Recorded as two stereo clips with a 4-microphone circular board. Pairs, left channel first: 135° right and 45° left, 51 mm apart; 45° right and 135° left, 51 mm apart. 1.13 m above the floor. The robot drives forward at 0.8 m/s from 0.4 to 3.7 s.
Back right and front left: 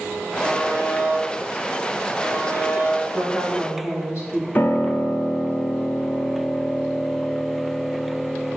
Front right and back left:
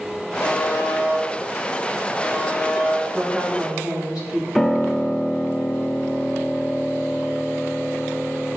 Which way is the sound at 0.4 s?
65° right.